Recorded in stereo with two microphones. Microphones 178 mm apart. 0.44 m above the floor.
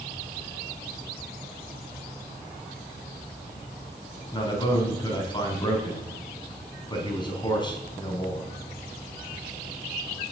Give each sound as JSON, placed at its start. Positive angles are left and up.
{"t": 4.3, "sound": "a man speaking", "side_deg": 25, "distance_m": 4.5}